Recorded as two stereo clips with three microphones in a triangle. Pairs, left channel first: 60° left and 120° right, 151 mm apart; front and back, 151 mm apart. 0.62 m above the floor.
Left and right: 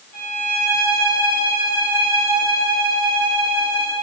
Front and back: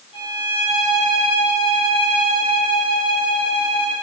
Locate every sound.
0.1 s a violin: 50° left, 2.5 m